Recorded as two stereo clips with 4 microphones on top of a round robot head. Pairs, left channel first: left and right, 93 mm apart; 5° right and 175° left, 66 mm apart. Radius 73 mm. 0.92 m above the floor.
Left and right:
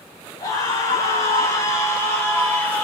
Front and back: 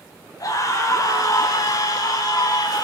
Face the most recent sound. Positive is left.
turn(degrees=15)